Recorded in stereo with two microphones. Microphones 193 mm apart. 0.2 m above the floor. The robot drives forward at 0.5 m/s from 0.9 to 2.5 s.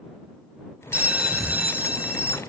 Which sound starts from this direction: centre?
A bell, at 0.9 s.